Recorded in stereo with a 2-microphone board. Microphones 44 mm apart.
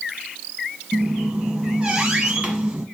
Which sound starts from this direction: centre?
A squeak, at 0.9 s.